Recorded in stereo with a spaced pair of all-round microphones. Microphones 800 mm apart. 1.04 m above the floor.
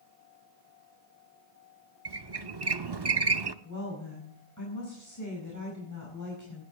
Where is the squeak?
30° right (ahead or behind), 0.7 m.